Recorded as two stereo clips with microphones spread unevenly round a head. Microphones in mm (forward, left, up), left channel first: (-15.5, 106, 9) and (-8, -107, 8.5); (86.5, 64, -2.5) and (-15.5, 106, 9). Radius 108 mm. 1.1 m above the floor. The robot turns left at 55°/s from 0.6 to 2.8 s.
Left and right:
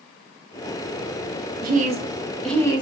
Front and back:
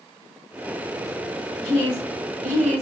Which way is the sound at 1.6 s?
135° right.